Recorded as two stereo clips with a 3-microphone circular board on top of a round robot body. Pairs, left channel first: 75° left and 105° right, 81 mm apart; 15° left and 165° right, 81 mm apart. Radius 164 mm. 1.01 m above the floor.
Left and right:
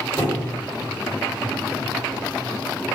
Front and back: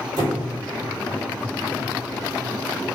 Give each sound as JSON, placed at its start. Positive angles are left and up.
{"t": 0.2, "sound": "a squeak", "azimuth_deg": 155, "distance_m": 1.2}